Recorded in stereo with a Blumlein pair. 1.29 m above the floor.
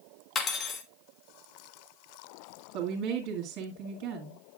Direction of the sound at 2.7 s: 40° right.